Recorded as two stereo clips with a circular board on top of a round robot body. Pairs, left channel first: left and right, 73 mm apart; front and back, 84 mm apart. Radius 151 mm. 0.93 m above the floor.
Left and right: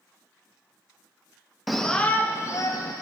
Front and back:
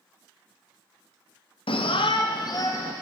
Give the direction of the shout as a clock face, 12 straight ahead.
12 o'clock.